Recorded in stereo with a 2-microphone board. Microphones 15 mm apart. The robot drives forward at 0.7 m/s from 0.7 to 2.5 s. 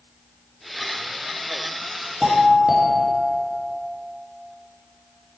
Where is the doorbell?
65° right (ahead or behind), 2.5 m; by 3.6 s 60° right (ahead or behind), 2.5 m.